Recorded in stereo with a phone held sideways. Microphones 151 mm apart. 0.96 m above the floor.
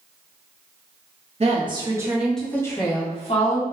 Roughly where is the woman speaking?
Right.